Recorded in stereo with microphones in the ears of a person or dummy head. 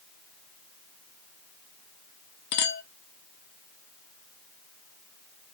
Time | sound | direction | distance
2.5 | a clink | 55° left (ahead or behind) | 1.2 m